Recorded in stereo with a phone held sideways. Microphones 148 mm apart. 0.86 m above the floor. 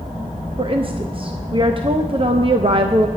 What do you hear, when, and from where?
0.6 s a woman speaking: 40° right (ahead or behind), 0.5 m